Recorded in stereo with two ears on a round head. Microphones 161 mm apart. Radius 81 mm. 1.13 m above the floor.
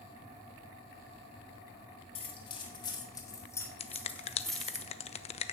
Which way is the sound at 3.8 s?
35° left (ahead or behind).